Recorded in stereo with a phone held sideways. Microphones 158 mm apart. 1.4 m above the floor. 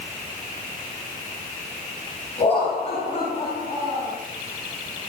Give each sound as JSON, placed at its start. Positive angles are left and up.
{"t": 2.4, "sound": "laughter", "side_deg": 40, "distance_m": 9.0}